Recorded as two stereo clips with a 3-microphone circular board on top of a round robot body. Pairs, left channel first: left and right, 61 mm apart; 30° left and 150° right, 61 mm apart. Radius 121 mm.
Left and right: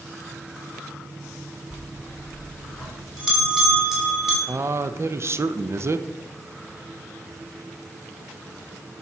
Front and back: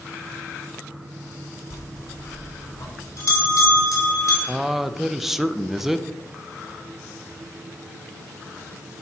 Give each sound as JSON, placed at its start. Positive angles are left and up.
{"t": 1.7, "sound": "a bell", "azimuth_deg": -5, "distance_m": 3.5}
{"t": 4.5, "sound": "a man speaking", "azimuth_deg": -65, "distance_m": 0.6}